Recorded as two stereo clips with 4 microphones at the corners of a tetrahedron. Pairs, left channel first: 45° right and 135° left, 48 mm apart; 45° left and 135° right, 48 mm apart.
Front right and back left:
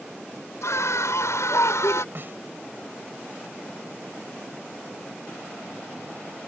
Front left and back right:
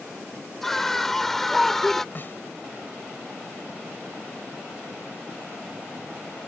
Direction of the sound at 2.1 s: 95° left.